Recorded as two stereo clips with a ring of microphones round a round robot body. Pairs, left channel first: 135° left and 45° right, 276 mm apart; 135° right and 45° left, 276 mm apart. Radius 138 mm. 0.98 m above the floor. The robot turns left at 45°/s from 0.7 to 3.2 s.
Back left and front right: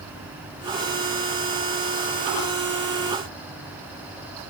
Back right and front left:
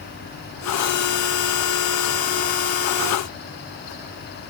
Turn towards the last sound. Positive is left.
No sound to turn to.